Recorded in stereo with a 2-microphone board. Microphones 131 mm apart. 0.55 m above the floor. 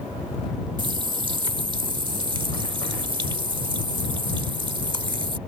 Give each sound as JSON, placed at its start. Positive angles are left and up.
{"t": 0.8, "sound": "a running tap", "side_deg": -40}